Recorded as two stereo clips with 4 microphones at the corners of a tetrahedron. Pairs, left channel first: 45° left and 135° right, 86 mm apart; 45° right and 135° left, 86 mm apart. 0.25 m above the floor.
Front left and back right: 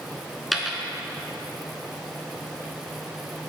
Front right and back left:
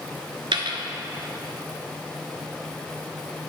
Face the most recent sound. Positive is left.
turn(degrees=135)